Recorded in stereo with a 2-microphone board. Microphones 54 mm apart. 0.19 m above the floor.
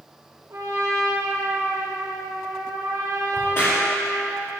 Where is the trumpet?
55° right (ahead or behind), 3.5 m.